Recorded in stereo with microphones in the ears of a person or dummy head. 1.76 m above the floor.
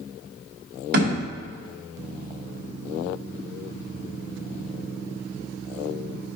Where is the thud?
65° right (ahead or behind), 2.5 m.